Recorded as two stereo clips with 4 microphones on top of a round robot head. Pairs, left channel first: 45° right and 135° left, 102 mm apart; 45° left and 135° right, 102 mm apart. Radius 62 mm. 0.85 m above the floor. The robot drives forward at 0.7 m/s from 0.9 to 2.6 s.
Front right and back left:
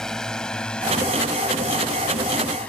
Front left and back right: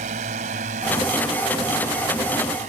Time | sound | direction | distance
0.0 | a drone | 130° right | ?